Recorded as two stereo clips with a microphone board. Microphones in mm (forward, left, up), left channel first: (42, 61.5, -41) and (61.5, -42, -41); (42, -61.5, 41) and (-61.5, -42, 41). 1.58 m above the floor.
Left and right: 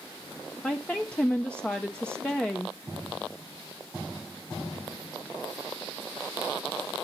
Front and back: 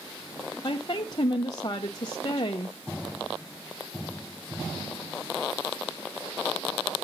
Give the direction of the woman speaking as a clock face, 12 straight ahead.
11 o'clock.